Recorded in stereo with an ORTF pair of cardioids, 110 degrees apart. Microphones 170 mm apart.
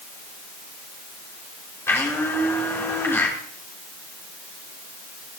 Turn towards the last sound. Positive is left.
turn(degrees=15)